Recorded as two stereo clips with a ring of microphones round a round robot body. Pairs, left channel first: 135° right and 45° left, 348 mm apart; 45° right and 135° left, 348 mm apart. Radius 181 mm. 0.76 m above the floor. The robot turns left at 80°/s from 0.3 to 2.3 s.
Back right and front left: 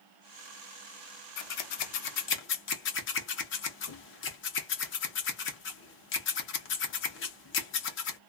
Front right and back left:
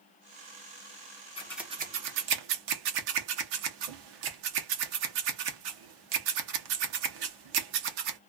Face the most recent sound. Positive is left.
turn(degrees=165)